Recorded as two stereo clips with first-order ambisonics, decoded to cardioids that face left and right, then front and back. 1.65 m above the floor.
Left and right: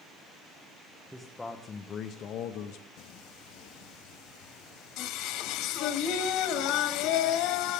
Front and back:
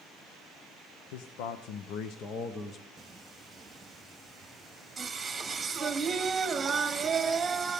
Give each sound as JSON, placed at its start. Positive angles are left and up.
{"t": 1.1, "sound": "a man speaking", "azimuth_deg": -5, "distance_m": 1.2}
{"t": 3.0, "sound": "singing", "azimuth_deg": 105, "distance_m": 1.6}